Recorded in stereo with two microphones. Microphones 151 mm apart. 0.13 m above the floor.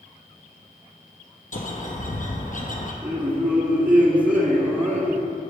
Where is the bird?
60° left (ahead or behind), 1.1 m.